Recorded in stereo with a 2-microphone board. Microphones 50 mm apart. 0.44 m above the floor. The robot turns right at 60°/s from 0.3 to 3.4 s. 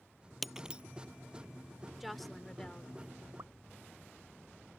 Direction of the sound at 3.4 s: 70° right (ahead or behind).